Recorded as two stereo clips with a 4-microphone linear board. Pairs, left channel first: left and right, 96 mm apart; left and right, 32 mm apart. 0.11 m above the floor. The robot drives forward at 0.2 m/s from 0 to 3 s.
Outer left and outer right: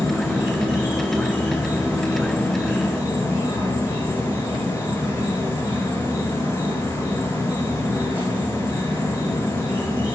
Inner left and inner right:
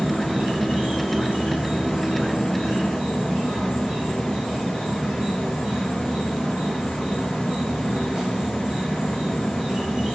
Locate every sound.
0.0 s an insect: 30° right (ahead or behind), 1.1 m; by 10.1 s 20° right (ahead or behind), 1.6 m